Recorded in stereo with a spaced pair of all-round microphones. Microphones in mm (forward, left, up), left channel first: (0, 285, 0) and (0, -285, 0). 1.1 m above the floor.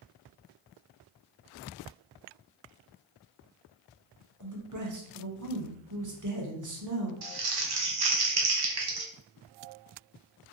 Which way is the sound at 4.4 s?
35° right (ahead or behind).